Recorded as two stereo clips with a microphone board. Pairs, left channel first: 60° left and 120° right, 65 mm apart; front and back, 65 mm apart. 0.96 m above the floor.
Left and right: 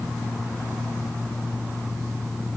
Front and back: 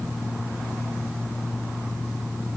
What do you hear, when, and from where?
Only background noise.